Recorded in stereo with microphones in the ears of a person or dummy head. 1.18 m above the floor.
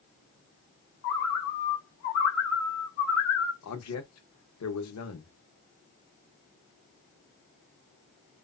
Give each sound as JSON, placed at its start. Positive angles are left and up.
{"t": 1.0, "sound": "a bird", "side_deg": 65, "distance_m": 0.9}
{"t": 3.6, "sound": "a man speaking", "side_deg": 90, "distance_m": 1.0}